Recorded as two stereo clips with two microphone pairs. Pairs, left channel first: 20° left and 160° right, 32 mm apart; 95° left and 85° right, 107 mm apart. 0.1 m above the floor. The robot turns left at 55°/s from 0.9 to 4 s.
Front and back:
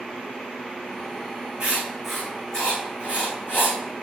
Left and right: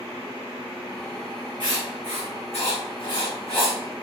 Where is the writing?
135° left, 4.5 m; by 3.8 s 15° left, 4.5 m.